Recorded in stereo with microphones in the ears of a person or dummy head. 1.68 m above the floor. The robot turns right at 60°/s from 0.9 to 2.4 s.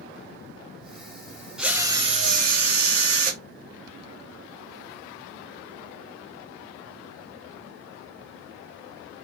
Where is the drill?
175° left, 0.6 m; by 3.4 s 135° right, 0.6 m.